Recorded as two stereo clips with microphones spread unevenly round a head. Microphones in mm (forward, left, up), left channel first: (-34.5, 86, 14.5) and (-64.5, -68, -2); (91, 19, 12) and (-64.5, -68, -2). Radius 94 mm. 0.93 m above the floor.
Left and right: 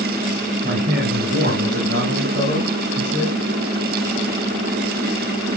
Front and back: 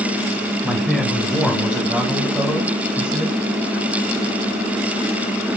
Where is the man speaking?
60° right, 3.5 m; by 3.4 s 70° right, 6.5 m.